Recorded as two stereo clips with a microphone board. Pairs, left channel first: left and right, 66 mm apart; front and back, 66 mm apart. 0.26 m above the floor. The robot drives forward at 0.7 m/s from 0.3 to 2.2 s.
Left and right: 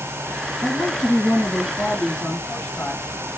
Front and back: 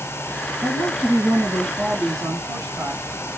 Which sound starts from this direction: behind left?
A woman speaking, at 0.6 s.